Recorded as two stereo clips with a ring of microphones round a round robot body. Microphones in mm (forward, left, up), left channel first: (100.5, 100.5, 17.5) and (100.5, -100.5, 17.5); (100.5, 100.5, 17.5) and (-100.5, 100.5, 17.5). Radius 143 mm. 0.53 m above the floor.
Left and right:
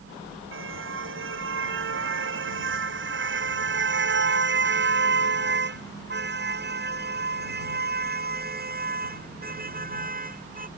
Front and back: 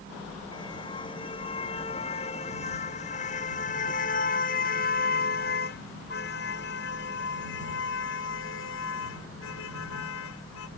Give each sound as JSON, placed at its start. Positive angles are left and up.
{"t": 0.5, "sound": "a car horn", "azimuth_deg": -75}